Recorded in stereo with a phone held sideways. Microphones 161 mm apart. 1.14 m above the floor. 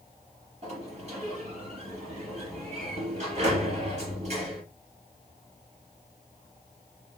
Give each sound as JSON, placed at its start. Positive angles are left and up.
{"t": 0.6, "sound": "a sliding door", "side_deg": -45, "distance_m": 3.0}